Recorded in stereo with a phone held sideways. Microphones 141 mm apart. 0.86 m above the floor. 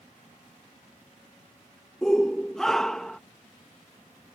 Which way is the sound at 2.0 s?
5° left (ahead or behind).